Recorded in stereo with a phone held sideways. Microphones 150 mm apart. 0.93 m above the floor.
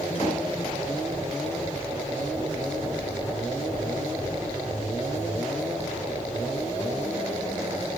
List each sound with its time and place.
0.1 s a door slam: 50° left (ahead or behind), 7 m